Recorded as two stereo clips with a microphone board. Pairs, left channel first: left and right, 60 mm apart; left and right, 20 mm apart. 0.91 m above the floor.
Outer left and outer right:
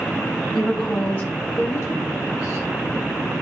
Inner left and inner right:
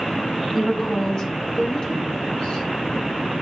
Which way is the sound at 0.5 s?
10° left (ahead or behind).